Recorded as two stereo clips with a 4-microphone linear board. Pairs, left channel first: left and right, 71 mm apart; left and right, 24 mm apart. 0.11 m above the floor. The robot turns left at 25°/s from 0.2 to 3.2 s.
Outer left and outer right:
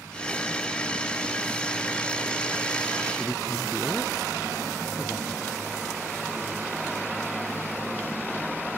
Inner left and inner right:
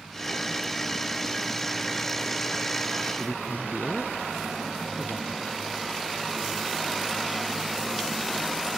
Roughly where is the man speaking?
Centre.